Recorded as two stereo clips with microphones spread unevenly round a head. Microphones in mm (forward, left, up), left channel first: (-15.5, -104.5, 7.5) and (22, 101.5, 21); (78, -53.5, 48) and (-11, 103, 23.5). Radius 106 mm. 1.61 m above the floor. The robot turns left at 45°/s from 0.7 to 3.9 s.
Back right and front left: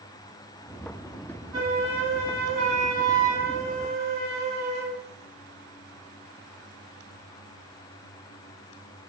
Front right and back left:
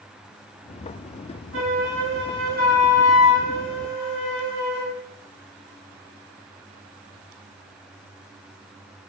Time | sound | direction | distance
1.5 | a flute | 145° left | 1.2 m